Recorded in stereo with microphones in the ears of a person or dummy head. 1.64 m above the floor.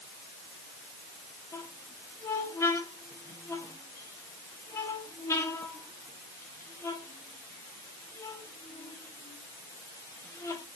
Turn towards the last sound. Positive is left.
turn(degrees=15)  # may be behind; listen again after turning